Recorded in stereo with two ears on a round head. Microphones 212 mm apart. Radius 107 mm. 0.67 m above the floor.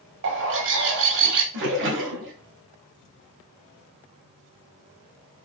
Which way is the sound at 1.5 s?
50° right (ahead or behind).